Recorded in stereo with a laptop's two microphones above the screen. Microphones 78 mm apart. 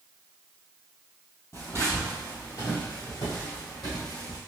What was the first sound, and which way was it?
Footsteps, 35° left (ahead or behind).